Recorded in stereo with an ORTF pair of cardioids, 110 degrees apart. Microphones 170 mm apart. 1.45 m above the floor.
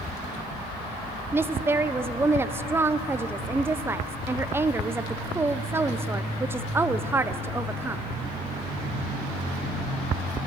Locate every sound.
1.3 s a woman speaking: 15° right, 0.7 m